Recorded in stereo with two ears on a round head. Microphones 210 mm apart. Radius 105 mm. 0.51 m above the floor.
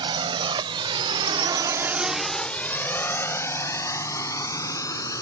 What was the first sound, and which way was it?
A drone, 20° right (ahead or behind).